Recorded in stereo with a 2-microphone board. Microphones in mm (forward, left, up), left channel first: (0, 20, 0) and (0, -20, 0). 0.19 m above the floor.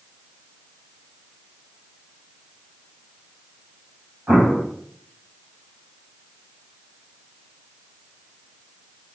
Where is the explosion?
20° right (ahead or behind), 4 m.